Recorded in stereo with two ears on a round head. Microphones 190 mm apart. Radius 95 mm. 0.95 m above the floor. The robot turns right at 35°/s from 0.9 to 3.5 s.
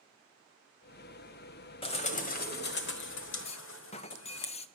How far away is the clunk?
About 0.6 m.